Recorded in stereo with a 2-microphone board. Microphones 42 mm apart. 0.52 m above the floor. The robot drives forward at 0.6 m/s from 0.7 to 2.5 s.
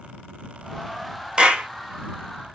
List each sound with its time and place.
1.4 s a clap: 25° right (ahead or behind), 1.0 m; by 1.7 s 30° right (ahead or behind), 0.9 m